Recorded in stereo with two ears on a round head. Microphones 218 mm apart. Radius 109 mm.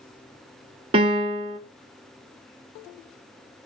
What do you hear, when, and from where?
0.9 s a piano: 25° right (ahead or behind), 0.9 m